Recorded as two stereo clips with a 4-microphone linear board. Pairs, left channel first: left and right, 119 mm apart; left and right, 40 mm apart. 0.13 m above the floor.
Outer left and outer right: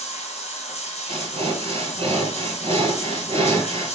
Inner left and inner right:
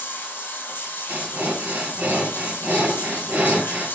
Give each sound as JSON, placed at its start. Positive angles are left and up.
{"t": 0.0, "sound": "running water", "side_deg": 65, "distance_m": 1.4}
{"t": 1.1, "sound": "breathing", "side_deg": -55, "distance_m": 1.4}